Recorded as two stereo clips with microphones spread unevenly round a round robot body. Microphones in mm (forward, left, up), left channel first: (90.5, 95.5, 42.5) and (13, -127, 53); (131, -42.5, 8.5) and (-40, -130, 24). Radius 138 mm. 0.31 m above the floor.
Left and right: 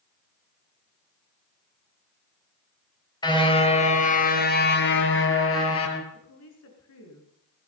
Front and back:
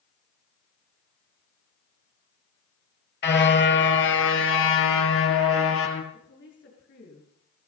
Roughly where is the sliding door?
I don't hear a sliding door.